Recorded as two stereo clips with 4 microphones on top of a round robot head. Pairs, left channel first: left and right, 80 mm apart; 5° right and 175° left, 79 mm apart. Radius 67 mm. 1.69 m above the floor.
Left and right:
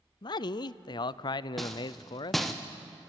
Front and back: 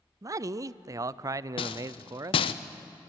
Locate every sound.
0.2 s a man speaking: 125° left, 0.5 m
1.6 s a rattle: straight ahead, 0.7 m